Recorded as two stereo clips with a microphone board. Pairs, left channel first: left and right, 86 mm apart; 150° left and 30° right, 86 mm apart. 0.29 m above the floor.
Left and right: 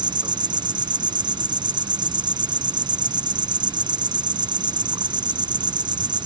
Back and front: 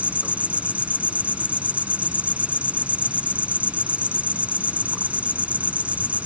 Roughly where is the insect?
Right.